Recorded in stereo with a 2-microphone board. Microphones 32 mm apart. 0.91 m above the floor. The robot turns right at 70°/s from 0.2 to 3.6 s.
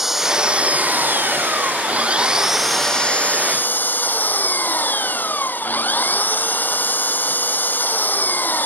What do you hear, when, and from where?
0.0 s an engine running: 175° right; by 8.7 s 65° left